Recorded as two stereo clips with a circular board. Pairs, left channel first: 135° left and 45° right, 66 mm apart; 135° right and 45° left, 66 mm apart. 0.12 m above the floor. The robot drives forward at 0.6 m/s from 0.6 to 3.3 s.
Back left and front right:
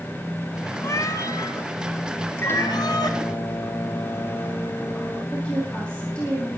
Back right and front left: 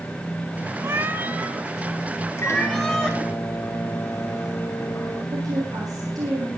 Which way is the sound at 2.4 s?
175° right.